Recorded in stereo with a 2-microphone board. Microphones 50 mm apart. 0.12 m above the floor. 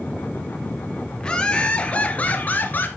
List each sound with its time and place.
1.2 s laughter: 20° left (ahead or behind), 2.5 m; by 2.9 s 40° left (ahead or behind), 2 m